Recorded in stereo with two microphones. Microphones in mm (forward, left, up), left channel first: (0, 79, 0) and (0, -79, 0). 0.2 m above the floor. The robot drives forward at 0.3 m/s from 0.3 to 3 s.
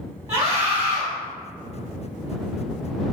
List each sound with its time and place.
0.3 s a scream: 20° right (ahead or behind), 1.1 m